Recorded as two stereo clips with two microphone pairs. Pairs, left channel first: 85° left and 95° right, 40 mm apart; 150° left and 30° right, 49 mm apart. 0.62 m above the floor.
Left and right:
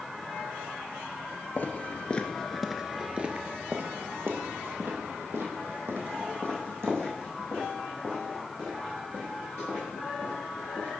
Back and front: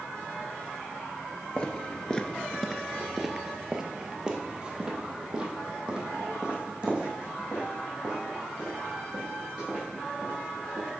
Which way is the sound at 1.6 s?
100° left.